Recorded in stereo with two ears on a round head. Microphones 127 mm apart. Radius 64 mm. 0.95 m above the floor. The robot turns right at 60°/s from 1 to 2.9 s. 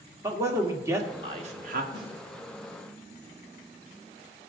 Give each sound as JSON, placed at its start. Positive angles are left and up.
{"t": 0.2, "sound": "a man speaking", "side_deg": -20, "distance_m": 1.4}
{"t": 1.9, "sound": "a snare drum", "side_deg": -85, "distance_m": 5.0}